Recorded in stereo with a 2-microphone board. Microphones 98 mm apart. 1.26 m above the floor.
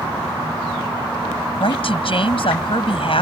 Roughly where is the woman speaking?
Left.